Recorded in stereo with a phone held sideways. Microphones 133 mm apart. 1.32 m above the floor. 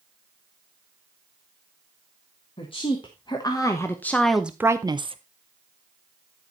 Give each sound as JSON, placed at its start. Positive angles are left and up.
{"t": 2.6, "sound": "a woman speaking", "side_deg": 40, "distance_m": 1.5}